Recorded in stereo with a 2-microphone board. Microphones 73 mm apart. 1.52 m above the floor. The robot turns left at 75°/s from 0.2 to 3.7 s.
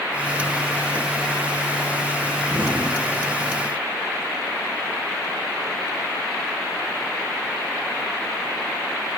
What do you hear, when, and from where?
2.5 s an explosion: 20° right (ahead or behind), 5 m; by 3.6 s 75° right (ahead or behind), 5 m